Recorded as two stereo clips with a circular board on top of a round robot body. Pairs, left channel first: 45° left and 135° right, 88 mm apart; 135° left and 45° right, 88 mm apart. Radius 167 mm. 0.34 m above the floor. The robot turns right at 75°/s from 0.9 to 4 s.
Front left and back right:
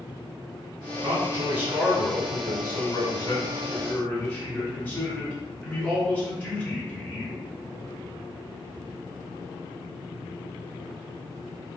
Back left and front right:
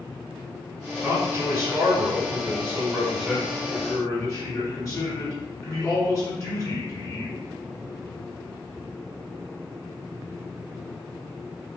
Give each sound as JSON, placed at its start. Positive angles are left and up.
{"t": 1.0, "sound": "a man speaking", "azimuth_deg": -120, "distance_m": 1.9}